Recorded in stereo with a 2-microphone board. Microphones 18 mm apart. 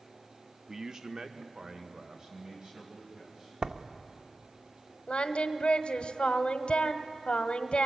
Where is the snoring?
I don't hear snoring.